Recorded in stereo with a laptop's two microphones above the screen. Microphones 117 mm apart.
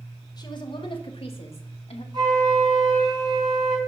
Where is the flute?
40° right (ahead or behind), 3.5 m.